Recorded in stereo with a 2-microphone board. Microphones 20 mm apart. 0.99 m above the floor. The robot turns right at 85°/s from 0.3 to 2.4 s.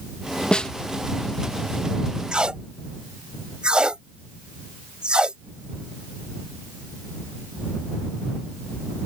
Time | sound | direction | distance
0.5 | a snare drum | 60° left (ahead or behind) | ?
2.3 | tape being pulled | 55° right (ahead or behind) | ?